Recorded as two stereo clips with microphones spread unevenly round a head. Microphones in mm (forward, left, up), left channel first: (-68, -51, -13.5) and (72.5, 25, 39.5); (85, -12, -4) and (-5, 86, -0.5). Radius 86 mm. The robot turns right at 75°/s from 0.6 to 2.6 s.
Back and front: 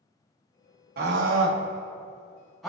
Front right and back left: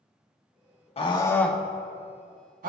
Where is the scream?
5° right, 1.8 m; by 2.7 s 120° left, 1.8 m.